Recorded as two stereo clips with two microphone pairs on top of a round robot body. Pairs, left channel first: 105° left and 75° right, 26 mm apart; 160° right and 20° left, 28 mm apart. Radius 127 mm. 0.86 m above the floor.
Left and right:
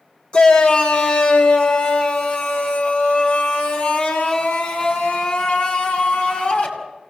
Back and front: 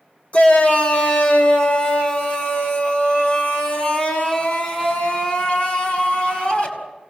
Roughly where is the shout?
Behind.